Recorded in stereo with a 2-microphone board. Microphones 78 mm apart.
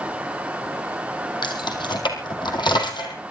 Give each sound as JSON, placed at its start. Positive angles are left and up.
{"t": 1.4, "sound": "keys jangling", "side_deg": 70, "distance_m": 3.0}